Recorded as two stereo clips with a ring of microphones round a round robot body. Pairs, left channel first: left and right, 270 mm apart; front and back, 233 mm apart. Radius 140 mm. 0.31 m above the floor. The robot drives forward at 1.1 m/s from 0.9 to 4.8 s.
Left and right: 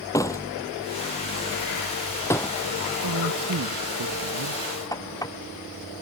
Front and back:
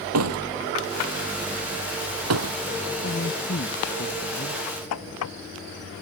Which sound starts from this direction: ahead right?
A man speaking, at 3.0 s.